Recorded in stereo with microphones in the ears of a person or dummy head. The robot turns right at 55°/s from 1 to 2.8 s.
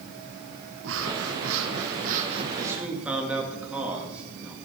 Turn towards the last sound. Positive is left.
turn(degrees=-10)  # may be behind; listen again after turning